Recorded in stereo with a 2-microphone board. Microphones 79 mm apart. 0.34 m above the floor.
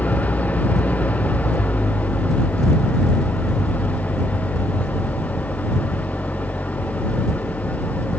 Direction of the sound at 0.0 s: 15° left (ahead or behind).